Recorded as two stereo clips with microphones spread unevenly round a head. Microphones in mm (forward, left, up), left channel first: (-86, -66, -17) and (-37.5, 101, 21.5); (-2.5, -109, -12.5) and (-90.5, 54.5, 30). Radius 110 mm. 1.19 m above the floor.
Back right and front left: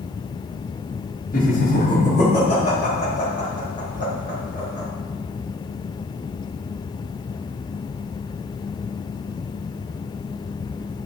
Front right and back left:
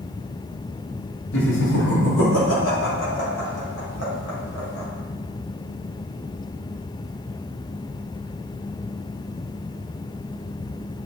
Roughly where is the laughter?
Ahead right.